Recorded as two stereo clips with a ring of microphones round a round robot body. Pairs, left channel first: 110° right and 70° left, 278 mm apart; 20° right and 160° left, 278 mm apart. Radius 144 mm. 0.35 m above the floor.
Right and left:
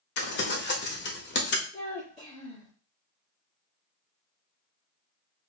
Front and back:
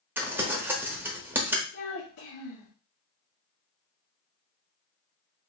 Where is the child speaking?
35° right, 3 m.